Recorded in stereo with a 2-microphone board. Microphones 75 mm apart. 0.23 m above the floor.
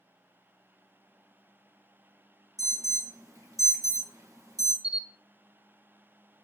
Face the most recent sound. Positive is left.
turn(degrees=55)  # may be behind; listen again after turning